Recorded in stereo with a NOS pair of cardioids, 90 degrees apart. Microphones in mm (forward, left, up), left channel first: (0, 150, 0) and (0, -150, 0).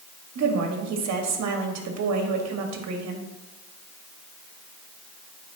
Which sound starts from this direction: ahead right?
A woman speaking, at 0.3 s.